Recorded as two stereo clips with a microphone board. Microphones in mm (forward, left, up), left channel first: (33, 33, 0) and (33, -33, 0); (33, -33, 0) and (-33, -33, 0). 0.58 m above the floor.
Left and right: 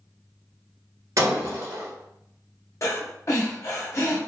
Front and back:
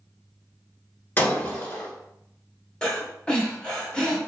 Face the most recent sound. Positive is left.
turn(degrees=75)